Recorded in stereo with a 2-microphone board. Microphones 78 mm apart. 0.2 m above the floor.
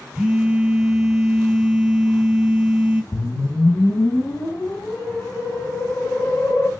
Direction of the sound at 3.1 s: 40° left (ahead or behind).